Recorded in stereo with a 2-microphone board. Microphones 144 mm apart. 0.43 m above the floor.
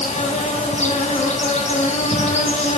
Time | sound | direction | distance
0.0 | an insect | 50° left (ahead or behind) | 3 m